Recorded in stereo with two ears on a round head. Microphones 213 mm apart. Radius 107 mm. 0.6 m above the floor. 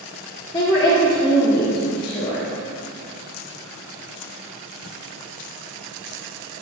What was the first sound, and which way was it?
A woman speaking, 20° left (ahead or behind).